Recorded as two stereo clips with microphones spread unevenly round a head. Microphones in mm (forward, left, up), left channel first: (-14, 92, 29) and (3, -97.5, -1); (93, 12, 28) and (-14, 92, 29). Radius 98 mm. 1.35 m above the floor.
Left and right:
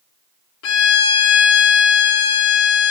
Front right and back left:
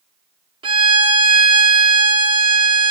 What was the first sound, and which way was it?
A violin, 90° left.